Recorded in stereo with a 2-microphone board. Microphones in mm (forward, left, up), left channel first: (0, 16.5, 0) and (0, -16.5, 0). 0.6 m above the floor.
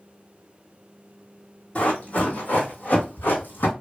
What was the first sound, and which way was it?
Running footsteps, 40° left (ahead or behind).